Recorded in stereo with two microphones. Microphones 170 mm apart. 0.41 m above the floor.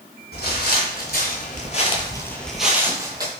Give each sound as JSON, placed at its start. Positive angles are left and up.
{"t": 0.3, "sound": "footsteps", "side_deg": 70, "distance_m": 1.1}